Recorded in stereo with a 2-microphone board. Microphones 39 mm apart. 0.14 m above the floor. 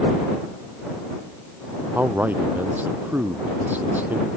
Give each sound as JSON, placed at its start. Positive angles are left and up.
{"t": 1.9, "sound": "a man speaking", "side_deg": -50}